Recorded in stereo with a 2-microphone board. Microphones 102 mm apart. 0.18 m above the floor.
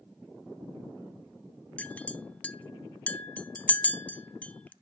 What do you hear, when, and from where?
1.8 s a clink: 15° left (ahead or behind), 0.6 m